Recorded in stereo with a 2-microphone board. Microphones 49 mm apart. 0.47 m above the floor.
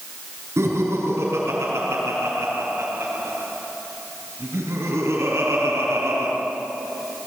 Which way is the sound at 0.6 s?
65° right (ahead or behind).